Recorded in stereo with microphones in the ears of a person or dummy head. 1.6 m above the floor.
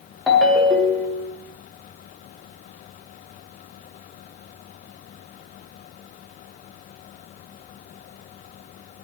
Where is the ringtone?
Centre (ahead or behind), 0.8 m.